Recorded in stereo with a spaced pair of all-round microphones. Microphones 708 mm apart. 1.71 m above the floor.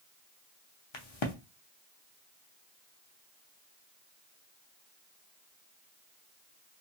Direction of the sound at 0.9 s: 45° left (ahead or behind).